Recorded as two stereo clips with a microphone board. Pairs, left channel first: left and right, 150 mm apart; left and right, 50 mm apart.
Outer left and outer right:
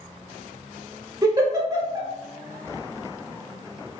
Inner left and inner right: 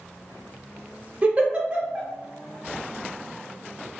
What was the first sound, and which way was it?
A giggle, 25° right (ahead or behind).